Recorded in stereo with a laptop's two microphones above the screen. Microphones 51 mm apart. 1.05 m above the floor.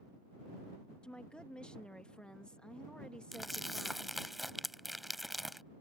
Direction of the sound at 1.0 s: 20° left (ahead or behind).